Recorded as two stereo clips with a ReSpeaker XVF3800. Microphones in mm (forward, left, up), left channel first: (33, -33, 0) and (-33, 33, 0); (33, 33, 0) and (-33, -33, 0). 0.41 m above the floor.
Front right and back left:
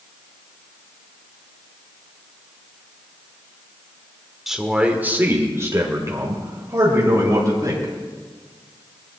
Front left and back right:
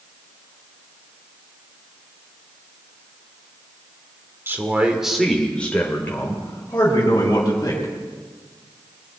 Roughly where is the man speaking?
Behind right.